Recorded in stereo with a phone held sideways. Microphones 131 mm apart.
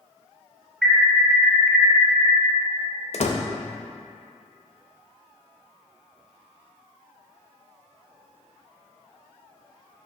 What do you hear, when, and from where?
0.8 s an alarm: 5° right (ahead or behind), 2 m
3.1 s a door slam: 55° left (ahead or behind), 0.5 m